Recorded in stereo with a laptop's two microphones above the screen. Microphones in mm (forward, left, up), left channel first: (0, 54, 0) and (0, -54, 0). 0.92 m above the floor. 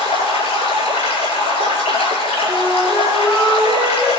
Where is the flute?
15° right (ahead or behind), 6 m.